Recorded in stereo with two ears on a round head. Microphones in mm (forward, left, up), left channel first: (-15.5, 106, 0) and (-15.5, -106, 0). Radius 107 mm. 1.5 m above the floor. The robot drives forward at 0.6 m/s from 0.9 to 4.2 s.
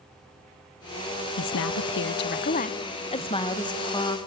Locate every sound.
1.4 s a woman speaking: 60° left (ahead or behind), 0.5 m; by 4.2 s 15° left (ahead or behind), 1.7 m